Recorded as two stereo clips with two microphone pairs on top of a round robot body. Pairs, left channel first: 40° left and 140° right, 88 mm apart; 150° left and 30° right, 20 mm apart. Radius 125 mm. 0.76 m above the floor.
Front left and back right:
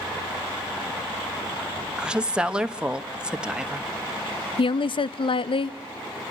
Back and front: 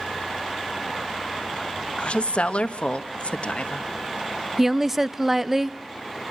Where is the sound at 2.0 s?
150° left, 1.4 m.